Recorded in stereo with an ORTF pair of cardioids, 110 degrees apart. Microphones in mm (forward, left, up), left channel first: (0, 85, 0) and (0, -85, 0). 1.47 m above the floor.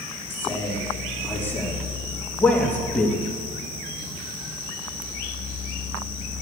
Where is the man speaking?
15° left, 4 m; by 3.2 s 10° left, 2 m.